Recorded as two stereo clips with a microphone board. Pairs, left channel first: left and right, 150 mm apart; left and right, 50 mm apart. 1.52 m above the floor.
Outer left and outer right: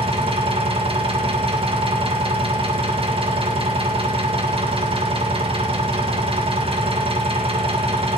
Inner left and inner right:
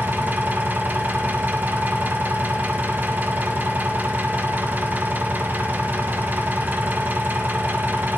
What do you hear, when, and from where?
0.0 s an engine running: 40° right (ahead or behind), 1.7 m